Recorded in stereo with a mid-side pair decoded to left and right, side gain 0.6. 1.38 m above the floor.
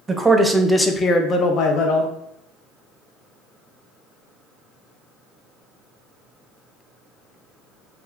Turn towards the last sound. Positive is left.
turn(degrees=75)